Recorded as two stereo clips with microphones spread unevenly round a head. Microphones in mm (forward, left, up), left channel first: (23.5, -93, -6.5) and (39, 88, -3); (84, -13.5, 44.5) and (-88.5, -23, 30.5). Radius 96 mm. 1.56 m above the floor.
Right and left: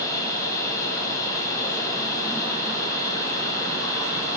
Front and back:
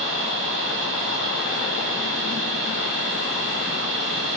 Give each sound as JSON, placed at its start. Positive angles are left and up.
{"t": 0.0, "sound": "a machine running", "azimuth_deg": -170, "distance_m": 4.0}